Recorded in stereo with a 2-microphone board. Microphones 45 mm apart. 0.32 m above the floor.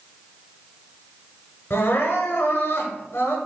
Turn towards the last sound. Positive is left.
turn(degrees=70)  # may be behind; listen again after turning